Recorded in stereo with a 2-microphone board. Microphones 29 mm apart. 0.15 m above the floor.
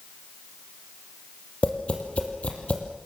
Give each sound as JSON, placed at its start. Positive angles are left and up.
{"t": 1.6, "sound": "tapping", "side_deg": 50, "distance_m": 4.5}